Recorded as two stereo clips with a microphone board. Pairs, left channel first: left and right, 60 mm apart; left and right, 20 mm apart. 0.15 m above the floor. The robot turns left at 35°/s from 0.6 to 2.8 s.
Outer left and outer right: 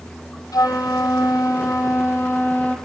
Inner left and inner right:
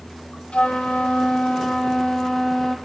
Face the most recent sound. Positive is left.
turn(degrees=25)